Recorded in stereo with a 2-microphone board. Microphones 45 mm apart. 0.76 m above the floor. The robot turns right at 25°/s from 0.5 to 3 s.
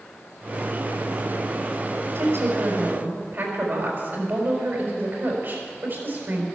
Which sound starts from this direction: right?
A woman speaking, at 2.1 s.